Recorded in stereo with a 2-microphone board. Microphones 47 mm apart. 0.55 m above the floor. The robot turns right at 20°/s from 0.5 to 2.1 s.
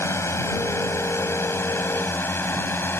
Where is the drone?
70° left (ahead or behind); by 3.0 s 50° left (ahead or behind).